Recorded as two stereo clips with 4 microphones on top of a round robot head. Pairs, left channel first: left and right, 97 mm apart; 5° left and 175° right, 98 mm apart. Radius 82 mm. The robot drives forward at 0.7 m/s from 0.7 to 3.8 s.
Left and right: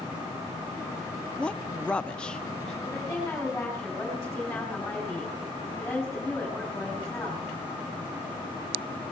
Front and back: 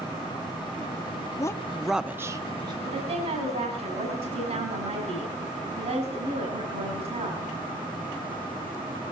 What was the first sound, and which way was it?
A woman speaking, 15° left.